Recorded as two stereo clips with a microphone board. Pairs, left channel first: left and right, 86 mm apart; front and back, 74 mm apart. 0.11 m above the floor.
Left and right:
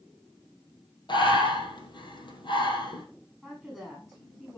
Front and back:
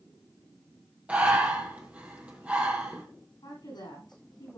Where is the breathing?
110° left, 2.5 m.